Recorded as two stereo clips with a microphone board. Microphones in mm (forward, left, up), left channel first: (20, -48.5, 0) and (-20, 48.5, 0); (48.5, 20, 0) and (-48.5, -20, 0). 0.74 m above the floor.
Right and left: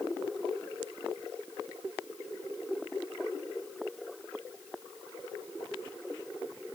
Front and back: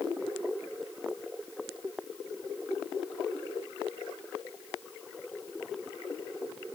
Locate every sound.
Only background noise.